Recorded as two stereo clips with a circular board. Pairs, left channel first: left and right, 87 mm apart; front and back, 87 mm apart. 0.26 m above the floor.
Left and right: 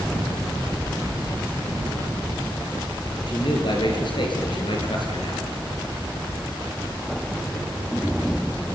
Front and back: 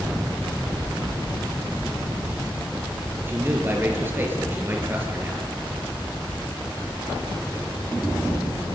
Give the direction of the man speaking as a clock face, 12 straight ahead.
8 o'clock.